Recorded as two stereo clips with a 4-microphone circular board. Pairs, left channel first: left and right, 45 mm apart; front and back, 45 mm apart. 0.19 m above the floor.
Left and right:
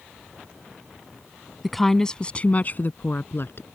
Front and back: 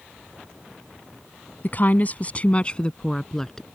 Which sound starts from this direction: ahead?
A woman speaking, at 1.6 s.